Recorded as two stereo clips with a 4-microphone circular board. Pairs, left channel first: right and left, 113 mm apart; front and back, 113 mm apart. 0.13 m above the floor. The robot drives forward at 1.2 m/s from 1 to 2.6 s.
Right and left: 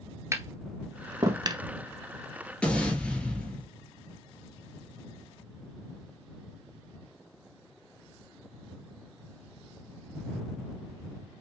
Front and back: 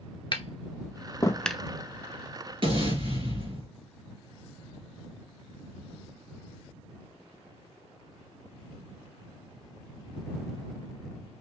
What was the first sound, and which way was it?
Tapping, 30° left.